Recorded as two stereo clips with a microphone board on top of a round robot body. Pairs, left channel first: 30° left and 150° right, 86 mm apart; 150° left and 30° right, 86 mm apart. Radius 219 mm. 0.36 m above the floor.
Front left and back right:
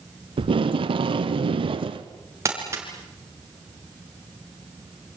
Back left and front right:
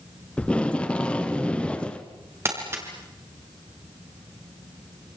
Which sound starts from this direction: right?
Crumpling, at 2.5 s.